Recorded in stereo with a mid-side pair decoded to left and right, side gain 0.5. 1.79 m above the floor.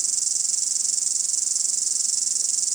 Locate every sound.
0.0 s an insect: 35° right